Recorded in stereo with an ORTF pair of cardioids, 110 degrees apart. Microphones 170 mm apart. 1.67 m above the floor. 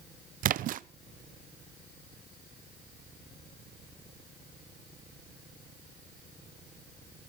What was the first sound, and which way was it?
A splash, 55° right.